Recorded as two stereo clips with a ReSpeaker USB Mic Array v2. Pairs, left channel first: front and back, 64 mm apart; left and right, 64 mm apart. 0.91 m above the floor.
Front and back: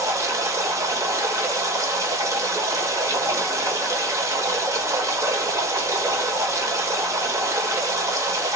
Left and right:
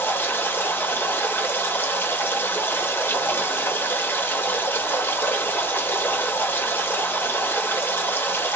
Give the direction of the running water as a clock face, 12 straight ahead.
7 o'clock.